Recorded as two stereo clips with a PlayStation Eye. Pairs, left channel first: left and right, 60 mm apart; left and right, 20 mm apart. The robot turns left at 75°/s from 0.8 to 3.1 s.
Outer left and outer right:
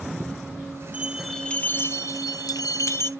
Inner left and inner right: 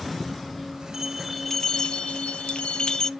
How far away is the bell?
About 0.7 m.